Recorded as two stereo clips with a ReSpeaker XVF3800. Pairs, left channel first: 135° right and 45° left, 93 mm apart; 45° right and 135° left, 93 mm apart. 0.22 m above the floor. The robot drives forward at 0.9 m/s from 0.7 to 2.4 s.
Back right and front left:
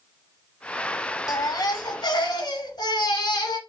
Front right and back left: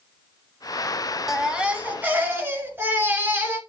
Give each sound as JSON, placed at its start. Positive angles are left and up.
{"t": 1.3, "sound": "a baby crying", "azimuth_deg": -140, "distance_m": 1.1}